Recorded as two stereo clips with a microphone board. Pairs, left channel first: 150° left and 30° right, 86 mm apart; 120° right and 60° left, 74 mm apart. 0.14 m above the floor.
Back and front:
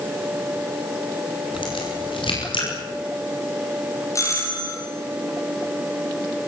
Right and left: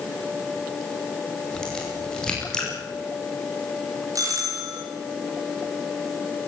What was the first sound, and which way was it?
A crack, 160° left.